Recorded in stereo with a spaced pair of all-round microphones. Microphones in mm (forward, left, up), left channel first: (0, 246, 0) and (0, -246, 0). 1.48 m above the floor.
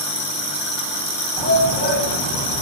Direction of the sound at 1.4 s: 65° right (ahead or behind).